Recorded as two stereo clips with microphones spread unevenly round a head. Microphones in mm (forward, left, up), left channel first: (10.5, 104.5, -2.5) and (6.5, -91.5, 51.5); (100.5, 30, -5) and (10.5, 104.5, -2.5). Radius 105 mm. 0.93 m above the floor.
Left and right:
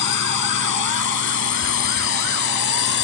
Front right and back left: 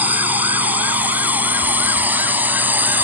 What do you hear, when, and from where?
0.0 s a drone: 65° left